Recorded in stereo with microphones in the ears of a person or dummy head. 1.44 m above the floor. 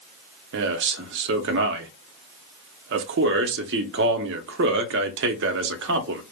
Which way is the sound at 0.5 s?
60° right (ahead or behind).